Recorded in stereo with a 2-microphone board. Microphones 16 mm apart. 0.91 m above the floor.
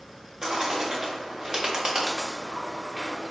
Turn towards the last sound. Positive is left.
turn(degrees=-35)  # may be behind; listen again after turning